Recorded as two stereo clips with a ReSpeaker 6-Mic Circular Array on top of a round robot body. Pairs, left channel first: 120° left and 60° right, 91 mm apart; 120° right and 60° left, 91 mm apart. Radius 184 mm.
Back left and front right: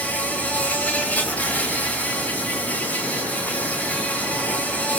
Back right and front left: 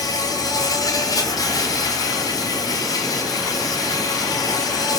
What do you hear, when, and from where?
0.0 s an insect: 165° right, 2.5 m